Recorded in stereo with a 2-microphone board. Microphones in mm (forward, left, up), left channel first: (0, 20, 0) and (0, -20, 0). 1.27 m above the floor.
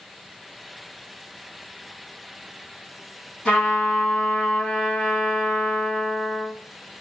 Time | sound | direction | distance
3.5 | a trumpet | 30° left (ahead or behind) | 1.7 m